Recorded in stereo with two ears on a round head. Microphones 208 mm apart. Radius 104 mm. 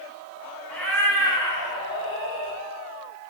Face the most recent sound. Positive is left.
turn(degrees=25)  # may be behind; listen again after turning